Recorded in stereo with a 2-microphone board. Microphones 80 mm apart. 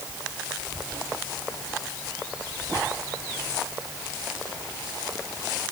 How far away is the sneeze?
I don't hear a sneeze.